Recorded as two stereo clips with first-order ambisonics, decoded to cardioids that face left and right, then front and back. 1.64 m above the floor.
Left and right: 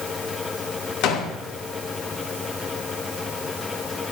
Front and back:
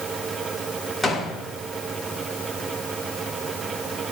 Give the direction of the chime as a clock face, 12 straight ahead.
No chime in this recording.